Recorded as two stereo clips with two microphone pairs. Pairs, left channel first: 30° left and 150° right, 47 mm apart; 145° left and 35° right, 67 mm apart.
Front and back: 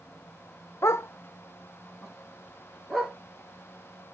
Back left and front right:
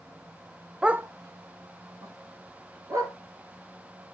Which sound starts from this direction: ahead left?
A dog barking, at 0.8 s.